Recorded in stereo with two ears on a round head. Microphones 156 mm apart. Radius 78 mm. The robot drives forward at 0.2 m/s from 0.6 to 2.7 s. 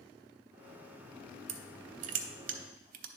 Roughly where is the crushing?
Right.